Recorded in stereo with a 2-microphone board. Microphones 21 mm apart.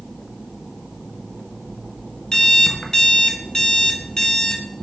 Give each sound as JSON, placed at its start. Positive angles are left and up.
{"t": 2.3, "sound": "an alarm clock", "side_deg": 35, "distance_m": 0.5}